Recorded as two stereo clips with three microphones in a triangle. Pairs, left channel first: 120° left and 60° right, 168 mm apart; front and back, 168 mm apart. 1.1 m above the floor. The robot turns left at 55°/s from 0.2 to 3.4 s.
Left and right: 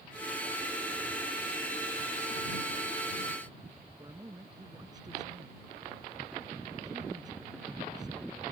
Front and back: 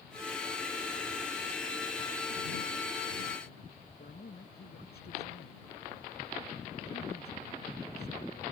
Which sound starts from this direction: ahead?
A man speaking, at 4.0 s.